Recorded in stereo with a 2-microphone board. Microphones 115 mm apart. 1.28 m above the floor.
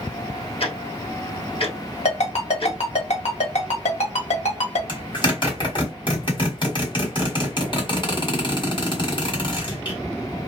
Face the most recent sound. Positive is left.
turn(degrees=45)  # may be behind; listen again after turning